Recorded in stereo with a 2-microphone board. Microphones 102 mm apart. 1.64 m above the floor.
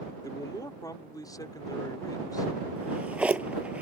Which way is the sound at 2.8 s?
15° right (ahead or behind).